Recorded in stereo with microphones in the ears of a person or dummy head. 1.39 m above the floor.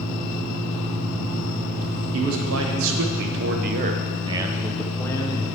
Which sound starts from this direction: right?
A man speaking, at 2.1 s.